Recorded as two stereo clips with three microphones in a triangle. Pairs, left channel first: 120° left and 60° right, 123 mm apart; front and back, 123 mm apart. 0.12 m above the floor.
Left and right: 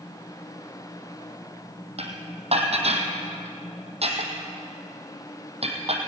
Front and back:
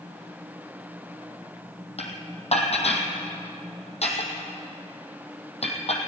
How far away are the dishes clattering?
About 3 m.